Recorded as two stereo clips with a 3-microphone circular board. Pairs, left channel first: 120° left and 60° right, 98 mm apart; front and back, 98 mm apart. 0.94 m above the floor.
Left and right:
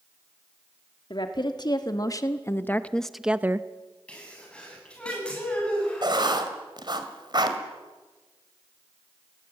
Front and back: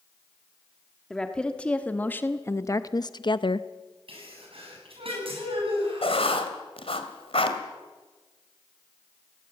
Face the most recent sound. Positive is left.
turn(degrees=-15)